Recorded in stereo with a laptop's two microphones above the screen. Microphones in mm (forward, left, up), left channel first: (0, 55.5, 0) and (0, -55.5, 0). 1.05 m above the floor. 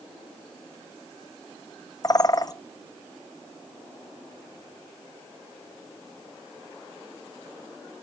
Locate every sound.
2.0 s a bird: 35° left (ahead or behind), 0.6 m